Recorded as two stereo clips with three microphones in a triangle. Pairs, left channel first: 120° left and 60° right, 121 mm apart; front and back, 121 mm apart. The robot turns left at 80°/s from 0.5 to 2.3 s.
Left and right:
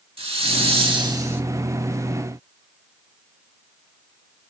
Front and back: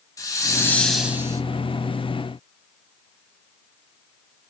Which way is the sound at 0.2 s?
55° right.